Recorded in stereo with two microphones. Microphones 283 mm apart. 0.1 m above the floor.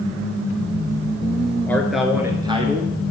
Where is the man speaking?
5° left (ahead or behind), 1.4 m; by 2.9 s 30° right (ahead or behind), 1.4 m.